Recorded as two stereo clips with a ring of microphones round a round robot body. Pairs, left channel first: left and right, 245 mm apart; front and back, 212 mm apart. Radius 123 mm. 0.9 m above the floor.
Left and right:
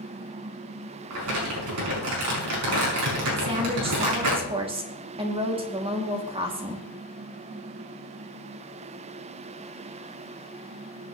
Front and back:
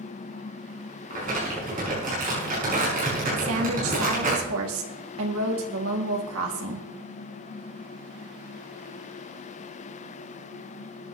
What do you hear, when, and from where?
1.1 s crumpling: 120° right, 6 m
3.4 s a woman speaking: 160° right, 1.9 m